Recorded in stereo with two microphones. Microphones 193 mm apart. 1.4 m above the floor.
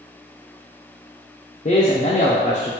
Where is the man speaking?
35° left (ahead or behind), 0.6 m.